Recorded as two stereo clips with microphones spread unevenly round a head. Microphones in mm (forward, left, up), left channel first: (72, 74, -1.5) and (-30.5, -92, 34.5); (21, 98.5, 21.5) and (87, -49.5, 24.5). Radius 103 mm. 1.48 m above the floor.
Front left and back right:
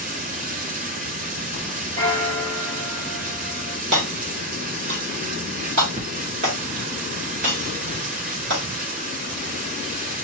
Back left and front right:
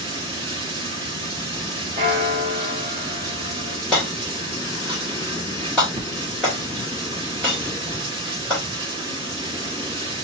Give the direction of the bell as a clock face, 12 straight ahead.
4 o'clock.